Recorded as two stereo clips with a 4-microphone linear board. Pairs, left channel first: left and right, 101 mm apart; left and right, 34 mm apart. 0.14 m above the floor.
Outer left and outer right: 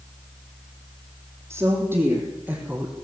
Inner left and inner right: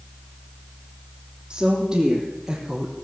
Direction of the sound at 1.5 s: 30° right (ahead or behind).